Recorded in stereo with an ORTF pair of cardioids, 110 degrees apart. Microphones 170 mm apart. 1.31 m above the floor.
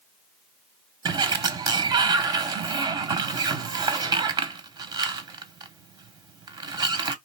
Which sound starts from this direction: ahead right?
A sliding door, at 1.1 s.